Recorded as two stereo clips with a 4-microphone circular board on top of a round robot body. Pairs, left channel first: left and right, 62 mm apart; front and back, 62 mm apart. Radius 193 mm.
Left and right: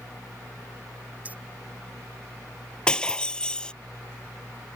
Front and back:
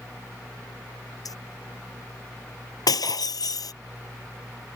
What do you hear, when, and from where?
1.2 s keys jangling: 25° right
2.9 s breaking glass: 15° left